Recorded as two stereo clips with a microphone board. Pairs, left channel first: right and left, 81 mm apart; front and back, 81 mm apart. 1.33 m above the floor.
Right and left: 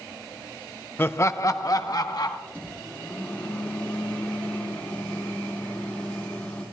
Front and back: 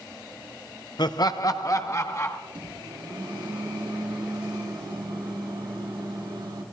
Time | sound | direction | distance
1.0 | laughter | 30° right | 0.6 m
2.5 | a microwave | 160° right | 2.5 m